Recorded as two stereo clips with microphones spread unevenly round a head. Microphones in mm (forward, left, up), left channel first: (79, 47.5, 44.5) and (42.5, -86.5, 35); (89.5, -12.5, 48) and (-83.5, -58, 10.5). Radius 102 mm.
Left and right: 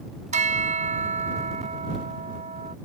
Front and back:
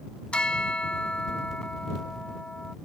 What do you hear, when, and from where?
0.3 s a bell: 70° right